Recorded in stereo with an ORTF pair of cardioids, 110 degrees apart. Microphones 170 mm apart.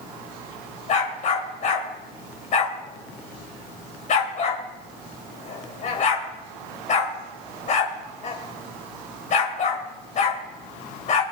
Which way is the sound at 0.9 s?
50° left.